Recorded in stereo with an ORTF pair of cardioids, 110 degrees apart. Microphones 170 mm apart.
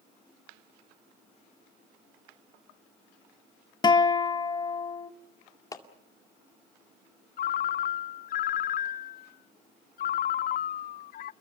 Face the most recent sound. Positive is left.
turn(degrees=55)